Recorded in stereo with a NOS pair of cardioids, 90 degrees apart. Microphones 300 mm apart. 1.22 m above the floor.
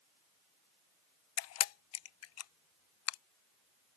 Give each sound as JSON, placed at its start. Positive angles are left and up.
{"t": 1.4, "sound": "a camera shutter", "azimuth_deg": 60}